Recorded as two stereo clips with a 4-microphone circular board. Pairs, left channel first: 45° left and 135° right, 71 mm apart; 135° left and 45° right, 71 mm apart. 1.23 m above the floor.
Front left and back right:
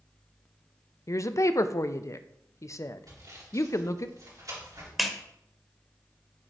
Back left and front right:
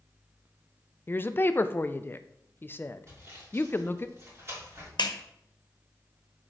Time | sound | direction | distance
1.1 | a woman speaking | 80° left | 0.5 m
3.1 | sawing | 100° right | 4 m
5.0 | a clap | 135° left | 0.9 m